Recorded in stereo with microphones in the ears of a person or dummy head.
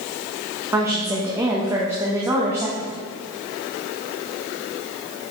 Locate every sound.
0.7 s a woman speaking: 15° right (ahead or behind), 1.2 m